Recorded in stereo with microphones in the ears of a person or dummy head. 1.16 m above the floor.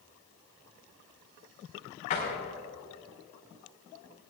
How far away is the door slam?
About 5.5 m.